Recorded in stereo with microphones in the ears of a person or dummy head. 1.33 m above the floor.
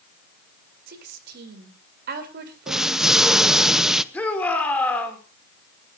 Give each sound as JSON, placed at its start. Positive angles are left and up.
{"t": 0.9, "sound": "a woman speaking", "side_deg": -60, "distance_m": 4.0}
{"t": 2.7, "sound": "an explosion", "side_deg": -5, "distance_m": 0.8}
{"t": 4.1, "sound": "a shout", "side_deg": 5, "distance_m": 4.0}